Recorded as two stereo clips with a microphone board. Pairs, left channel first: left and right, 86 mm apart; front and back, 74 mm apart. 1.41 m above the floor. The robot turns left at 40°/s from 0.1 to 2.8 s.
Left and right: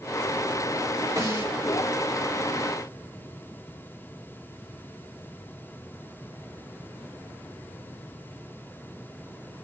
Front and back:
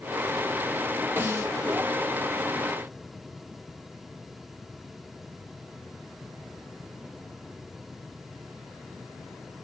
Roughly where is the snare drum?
Behind right.